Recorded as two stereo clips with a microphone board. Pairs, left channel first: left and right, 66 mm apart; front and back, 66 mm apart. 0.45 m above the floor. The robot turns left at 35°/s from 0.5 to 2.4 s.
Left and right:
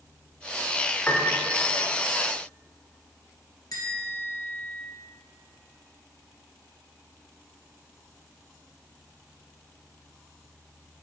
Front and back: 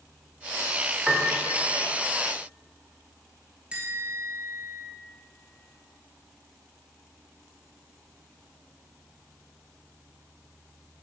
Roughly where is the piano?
Behind left.